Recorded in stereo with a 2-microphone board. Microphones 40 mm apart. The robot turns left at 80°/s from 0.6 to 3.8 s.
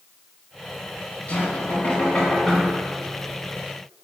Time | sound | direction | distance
1.3 | knocking | 110° left | 1.3 m